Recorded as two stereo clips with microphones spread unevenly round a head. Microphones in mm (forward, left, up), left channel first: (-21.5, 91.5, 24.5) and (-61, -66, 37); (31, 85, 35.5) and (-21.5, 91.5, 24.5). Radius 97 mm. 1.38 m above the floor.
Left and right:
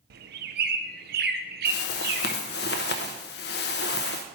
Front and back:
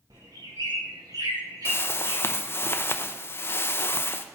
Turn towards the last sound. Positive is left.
turn(degrees=35)